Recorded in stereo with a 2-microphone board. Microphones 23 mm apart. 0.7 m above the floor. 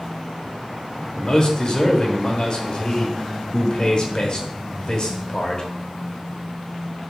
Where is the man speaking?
30° left (ahead or behind), 0.9 m.